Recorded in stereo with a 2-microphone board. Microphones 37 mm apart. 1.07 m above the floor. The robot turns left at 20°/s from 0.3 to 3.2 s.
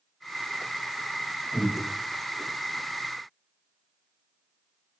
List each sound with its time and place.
1.5 s breathing: 70° left (ahead or behind), 1.9 m; by 1.8 s 65° left (ahead or behind), 1.9 m